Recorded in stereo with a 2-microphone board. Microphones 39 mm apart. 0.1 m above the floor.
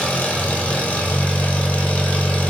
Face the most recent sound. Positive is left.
turn(degrees=40)  # may be behind; listen again after turning